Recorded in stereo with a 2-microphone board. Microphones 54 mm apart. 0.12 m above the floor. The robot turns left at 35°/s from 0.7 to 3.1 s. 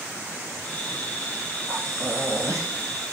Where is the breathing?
70° right, 1.5 m; by 2.7 s 105° right, 1.5 m.